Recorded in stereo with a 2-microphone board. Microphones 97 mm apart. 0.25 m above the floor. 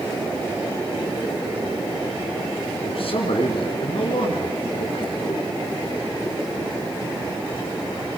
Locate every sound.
2.8 s a man speaking: 65° left (ahead or behind), 3.5 m